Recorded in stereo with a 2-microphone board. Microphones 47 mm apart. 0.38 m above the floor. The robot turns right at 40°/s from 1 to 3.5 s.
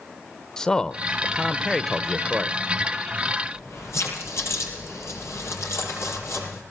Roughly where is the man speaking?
Centre.